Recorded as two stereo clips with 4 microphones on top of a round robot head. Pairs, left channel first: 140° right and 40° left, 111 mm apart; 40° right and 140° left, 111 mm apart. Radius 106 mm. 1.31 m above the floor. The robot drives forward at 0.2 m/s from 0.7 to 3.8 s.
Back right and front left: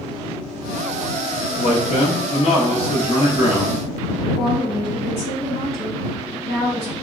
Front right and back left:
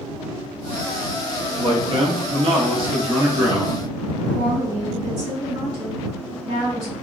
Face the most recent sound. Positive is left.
turn(degrees=-170)